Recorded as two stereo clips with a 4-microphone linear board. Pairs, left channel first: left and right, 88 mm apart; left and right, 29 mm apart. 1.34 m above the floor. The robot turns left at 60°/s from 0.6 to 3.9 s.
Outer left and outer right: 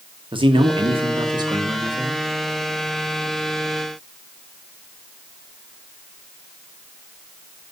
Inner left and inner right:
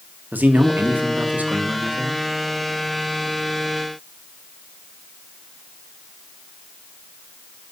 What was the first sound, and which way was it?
A man speaking, 75° right.